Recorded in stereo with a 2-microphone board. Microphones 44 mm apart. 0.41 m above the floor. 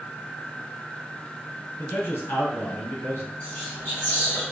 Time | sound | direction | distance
1.8 | a man speaking | 60° left (ahead or behind) | 2 m
3.4 | whispering | 50° left (ahead or behind) | 2 m